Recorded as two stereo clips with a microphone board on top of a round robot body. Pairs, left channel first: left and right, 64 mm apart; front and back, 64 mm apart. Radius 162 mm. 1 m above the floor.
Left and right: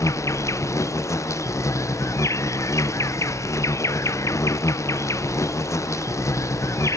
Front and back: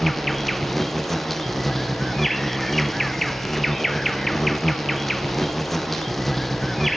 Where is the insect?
85° left.